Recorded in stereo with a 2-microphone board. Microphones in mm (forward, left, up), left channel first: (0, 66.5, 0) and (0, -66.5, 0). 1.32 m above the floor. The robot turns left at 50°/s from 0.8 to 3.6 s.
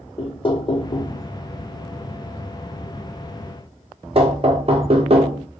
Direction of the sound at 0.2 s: 40° left (ahead or behind).